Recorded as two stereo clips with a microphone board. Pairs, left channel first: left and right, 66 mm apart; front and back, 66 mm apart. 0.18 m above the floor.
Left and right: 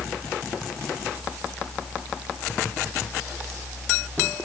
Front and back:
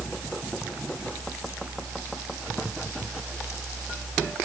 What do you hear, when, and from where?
Only background noise.